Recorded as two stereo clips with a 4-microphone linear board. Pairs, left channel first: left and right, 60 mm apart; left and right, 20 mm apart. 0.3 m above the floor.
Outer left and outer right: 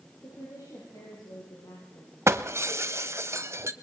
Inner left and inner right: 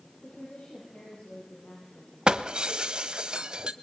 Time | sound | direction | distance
0.2 | a woman speaking | 75° left (ahead or behind) | 9 m
2.3 | breaking glass | 50° right (ahead or behind) | 1.0 m